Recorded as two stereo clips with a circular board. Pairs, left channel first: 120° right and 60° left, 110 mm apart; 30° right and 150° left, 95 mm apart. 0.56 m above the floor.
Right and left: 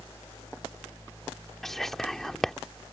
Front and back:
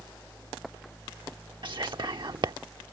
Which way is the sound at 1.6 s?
155° left.